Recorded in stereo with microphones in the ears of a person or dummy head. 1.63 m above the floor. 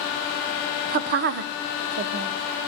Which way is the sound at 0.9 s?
40° right (ahead or behind).